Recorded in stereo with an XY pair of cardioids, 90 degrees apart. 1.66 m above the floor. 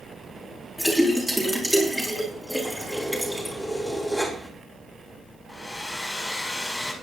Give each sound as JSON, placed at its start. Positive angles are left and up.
{"t": 0.8, "sound": "a splash", "azimuth_deg": -5, "distance_m": 5.0}
{"t": 2.6, "sound": "keys jangling", "azimuth_deg": -5, "distance_m": 4.0}
{"t": 5.5, "sound": "a hair dryer", "azimuth_deg": 20, "distance_m": 4.0}